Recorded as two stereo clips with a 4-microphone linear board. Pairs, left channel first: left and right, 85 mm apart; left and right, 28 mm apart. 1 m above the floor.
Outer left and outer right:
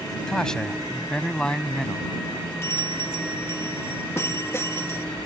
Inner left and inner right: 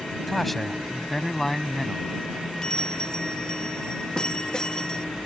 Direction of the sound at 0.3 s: 5° left (ahead or behind).